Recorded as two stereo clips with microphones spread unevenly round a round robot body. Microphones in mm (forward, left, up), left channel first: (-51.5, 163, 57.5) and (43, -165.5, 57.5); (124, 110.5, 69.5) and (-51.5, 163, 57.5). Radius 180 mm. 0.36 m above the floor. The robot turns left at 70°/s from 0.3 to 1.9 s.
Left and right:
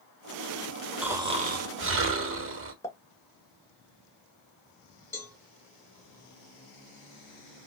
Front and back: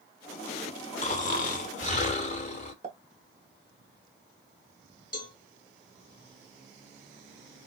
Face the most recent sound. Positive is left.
turn(degrees=25)